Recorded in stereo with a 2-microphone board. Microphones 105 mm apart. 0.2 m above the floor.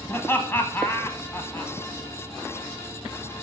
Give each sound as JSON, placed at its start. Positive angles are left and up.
{"t": 0.1, "sound": "laughter", "side_deg": 20, "distance_m": 1.2}